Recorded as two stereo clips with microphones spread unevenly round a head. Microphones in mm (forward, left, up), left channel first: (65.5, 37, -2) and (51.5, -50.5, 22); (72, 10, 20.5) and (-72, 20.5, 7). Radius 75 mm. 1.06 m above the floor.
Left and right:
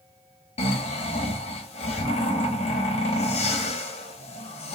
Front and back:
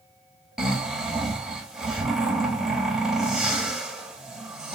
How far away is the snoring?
About 0.7 m.